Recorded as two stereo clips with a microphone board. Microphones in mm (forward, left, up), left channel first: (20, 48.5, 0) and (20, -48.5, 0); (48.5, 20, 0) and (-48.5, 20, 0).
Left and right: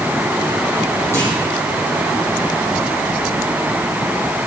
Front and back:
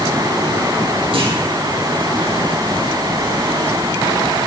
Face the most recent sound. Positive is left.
turn(degrees=155)